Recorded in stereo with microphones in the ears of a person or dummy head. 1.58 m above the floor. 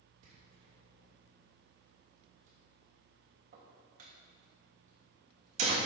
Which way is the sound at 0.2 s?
50° right (ahead or behind).